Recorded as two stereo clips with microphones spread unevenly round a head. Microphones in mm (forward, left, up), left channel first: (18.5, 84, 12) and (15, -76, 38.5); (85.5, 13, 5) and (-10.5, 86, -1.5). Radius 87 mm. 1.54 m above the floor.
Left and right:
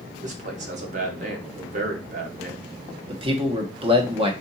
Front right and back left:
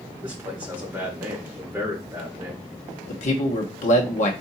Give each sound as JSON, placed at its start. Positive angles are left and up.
{"t": 0.2, "sound": "a man speaking", "azimuth_deg": -135, "distance_m": 1.0}
{"t": 3.1, "sound": "a man speaking", "azimuth_deg": -40, "distance_m": 1.1}